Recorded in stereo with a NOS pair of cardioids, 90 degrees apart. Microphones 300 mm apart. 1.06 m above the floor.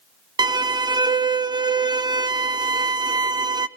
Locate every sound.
0.4 s a violin: 15° right, 0.5 m